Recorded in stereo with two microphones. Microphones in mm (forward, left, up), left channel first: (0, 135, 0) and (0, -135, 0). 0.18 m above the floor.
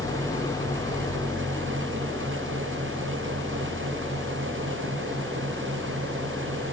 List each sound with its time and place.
0.0 s an engine running: 10° left (ahead or behind)